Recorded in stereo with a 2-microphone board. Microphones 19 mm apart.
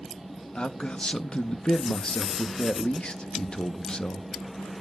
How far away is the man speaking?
About 0.9 m.